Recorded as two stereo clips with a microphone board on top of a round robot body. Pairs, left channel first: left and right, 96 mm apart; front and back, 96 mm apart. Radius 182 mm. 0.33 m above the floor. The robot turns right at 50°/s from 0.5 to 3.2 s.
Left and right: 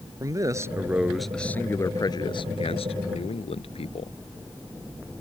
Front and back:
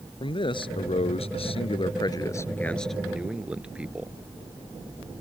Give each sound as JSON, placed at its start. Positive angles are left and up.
{"t": 0.2, "sound": "a man speaking", "azimuth_deg": -35}